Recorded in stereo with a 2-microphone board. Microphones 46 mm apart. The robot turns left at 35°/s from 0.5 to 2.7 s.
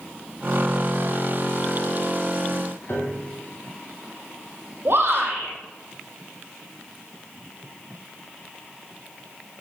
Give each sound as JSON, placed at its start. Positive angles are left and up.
{"t": 2.9, "sound": "a piano", "side_deg": 60, "distance_m": 4.0}
{"t": 4.8, "sound": "a shout", "side_deg": -55, "distance_m": 5.0}